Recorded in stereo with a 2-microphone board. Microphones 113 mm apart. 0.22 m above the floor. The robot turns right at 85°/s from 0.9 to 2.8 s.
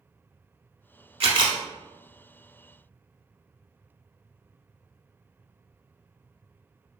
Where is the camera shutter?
70° right, 0.7 m; by 1.6 s 35° right, 0.7 m.